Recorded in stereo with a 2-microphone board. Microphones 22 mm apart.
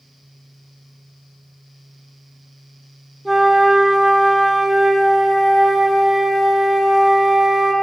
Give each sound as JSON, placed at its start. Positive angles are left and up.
{"t": 3.2, "sound": "a flute", "side_deg": -5, "distance_m": 0.5}